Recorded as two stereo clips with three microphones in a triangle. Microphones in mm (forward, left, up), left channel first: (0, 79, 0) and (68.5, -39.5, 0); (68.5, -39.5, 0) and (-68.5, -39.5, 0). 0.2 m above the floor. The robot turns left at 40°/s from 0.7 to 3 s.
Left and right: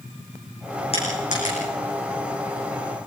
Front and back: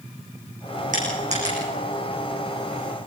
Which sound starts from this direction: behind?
Crushing, at 0.9 s.